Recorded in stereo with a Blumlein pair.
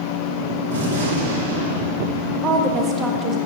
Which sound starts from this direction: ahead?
A woman speaking, at 2.4 s.